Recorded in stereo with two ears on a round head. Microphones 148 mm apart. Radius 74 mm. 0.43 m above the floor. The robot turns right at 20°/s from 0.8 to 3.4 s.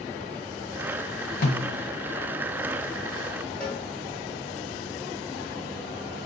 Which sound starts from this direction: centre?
A cowbell, at 3.6 s.